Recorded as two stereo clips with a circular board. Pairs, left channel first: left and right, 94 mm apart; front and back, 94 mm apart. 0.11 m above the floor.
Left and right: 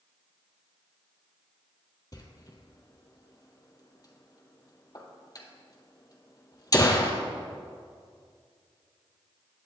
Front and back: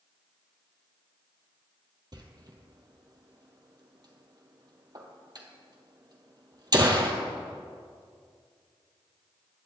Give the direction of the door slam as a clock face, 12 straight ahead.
7 o'clock.